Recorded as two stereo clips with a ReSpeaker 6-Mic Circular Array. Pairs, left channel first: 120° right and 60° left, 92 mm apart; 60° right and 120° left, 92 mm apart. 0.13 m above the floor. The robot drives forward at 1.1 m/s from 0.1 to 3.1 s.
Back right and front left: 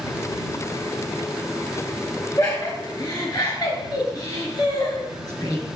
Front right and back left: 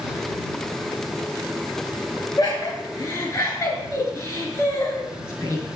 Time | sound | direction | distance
2.4 | laughter | 80° right | 2.5 m